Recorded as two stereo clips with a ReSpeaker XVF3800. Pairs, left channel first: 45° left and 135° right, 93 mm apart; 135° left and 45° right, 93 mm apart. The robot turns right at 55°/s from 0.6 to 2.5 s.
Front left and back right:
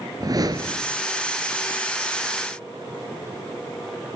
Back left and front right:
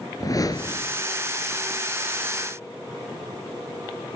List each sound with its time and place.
0.2 s a whoosh: straight behind, 3 m; by 1.0 s 160° right, 3 m